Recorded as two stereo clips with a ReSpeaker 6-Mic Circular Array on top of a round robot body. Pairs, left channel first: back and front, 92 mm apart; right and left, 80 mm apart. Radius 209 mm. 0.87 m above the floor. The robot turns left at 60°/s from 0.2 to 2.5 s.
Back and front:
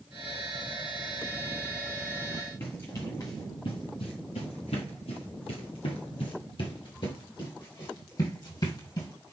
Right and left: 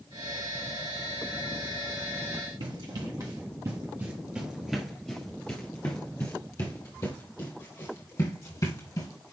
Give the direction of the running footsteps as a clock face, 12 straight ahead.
8 o'clock.